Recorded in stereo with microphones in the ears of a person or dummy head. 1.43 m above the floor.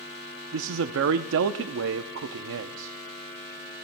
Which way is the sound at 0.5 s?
70° right (ahead or behind).